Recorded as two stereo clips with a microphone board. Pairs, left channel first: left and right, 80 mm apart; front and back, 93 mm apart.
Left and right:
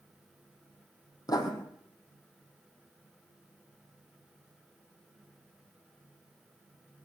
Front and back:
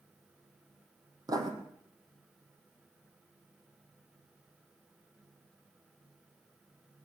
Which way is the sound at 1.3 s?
130° left.